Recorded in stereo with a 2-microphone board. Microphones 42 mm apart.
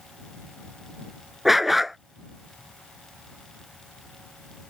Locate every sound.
1.4 s a dog barking: 5° right (ahead or behind)